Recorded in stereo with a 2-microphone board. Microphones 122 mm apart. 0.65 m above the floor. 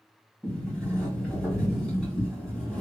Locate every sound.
0.4 s a sliding door: 5° left (ahead or behind), 2 m